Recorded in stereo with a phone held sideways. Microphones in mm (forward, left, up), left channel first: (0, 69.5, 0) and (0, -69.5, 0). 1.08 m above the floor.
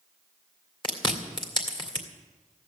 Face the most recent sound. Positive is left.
turn(degrees=35)  # may be behind; listen again after turning